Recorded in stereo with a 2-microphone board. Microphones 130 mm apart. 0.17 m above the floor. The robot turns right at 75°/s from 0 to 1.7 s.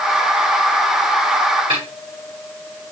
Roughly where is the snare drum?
Right.